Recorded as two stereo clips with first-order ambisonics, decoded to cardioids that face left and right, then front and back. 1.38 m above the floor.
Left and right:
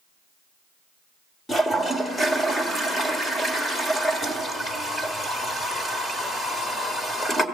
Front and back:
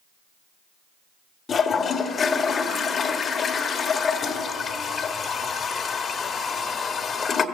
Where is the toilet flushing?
25° left, 1.1 m.